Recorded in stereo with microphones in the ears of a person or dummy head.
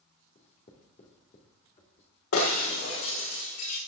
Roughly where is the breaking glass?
Left.